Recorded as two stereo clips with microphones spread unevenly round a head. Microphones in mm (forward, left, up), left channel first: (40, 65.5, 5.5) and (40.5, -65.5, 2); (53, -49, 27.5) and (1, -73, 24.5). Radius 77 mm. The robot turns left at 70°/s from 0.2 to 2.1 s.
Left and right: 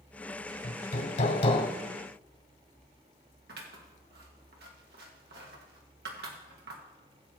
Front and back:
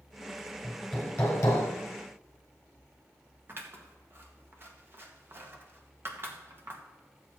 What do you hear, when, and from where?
0.6 s hammering: 130° left, 1.7 m; by 1.7 s 55° left, 1.7 m
3.5 s scissors: 105° right, 1.6 m